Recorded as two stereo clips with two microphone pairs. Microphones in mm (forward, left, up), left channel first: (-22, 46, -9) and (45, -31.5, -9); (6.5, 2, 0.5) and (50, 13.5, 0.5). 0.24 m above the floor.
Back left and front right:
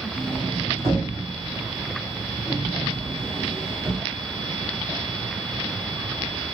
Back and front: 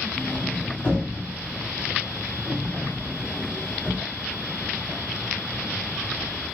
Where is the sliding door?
110° right, 1.4 m.